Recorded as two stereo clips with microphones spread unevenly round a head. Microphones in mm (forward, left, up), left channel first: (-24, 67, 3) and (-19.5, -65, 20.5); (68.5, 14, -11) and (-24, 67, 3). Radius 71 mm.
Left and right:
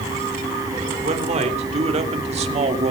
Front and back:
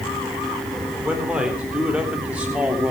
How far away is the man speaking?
About 3.5 m.